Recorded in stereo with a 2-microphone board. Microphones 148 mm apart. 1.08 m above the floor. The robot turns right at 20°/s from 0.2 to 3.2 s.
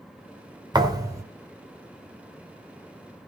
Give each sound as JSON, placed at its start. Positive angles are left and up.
{"t": 0.7, "sound": "a thud", "side_deg": -30, "distance_m": 1.4}